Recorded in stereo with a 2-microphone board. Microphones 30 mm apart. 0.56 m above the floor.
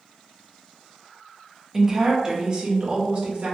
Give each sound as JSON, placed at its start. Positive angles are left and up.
{"t": 1.7, "sound": "a woman speaking", "side_deg": -10, "distance_m": 0.7}